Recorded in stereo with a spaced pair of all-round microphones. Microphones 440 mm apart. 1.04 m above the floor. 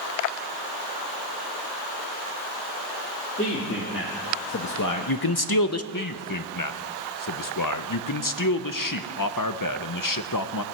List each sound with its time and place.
3.4 s a man speaking: 25° left (ahead or behind), 2.5 m; by 5.8 s 30° left (ahead or behind), 0.7 m
5.9 s a man speaking: 45° left (ahead or behind), 0.7 m